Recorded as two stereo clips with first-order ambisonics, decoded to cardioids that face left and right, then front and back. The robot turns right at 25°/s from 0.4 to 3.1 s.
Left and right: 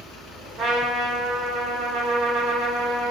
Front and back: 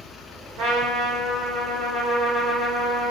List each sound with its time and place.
0.6 s a trumpet: 145° right, 1.4 m; by 3.1 s 85° right, 1.4 m